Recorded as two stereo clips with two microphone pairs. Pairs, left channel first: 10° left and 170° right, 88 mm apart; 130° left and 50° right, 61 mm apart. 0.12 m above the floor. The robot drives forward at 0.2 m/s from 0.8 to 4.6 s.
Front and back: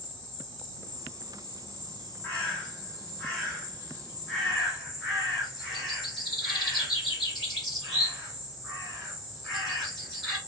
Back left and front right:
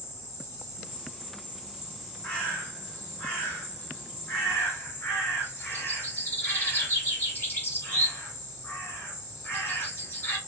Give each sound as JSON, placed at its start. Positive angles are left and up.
{"t": 0.0, "sound": "an insect", "azimuth_deg": 85, "distance_m": 2.0}
{"t": 2.2, "sound": "a bird", "azimuth_deg": 75, "distance_m": 1.6}